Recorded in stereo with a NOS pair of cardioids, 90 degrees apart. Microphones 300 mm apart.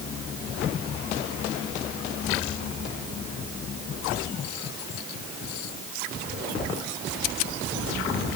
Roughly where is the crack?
No crack in this recording.